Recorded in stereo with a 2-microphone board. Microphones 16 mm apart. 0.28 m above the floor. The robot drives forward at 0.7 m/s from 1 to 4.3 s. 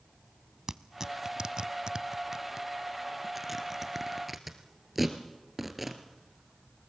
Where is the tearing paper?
35° right (ahead or behind), 0.6 m; by 6.9 s 10° right (ahead or behind), 1.9 m.